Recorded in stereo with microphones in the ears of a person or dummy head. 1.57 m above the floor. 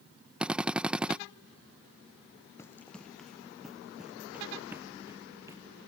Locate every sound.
0.4 s a drill: 5° right (ahead or behind)
2.6 s running footsteps: 15° left (ahead or behind); by 5.6 s 15° right (ahead or behind)